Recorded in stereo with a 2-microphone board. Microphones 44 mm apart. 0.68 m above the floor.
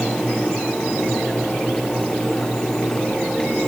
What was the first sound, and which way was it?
Only background noise.